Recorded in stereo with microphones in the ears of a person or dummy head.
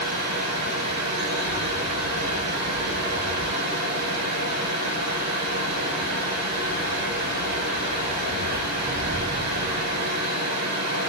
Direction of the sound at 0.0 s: 75° right (ahead or behind).